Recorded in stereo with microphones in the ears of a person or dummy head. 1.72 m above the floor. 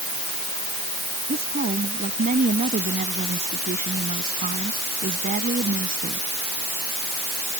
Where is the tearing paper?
I don't hear tearing paper.